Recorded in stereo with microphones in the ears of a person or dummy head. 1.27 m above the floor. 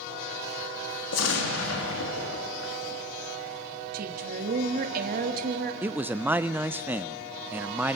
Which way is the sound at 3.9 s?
55° right (ahead or behind).